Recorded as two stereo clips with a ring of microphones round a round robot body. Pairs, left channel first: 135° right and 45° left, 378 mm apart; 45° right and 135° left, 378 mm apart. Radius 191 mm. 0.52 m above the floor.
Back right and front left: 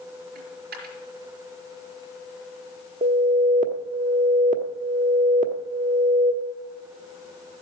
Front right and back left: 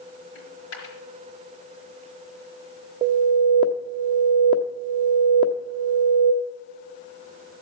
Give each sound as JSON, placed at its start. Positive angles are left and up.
{"t": 0.3, "sound": "a dropped coin", "azimuth_deg": -20, "distance_m": 4.0}
{"t": 3.0, "sound": "an alarm", "azimuth_deg": 75, "distance_m": 1.0}